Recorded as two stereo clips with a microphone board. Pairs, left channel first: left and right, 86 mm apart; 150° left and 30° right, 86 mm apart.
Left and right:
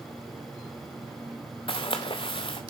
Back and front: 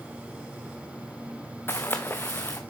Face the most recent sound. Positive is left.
turn(degrees=85)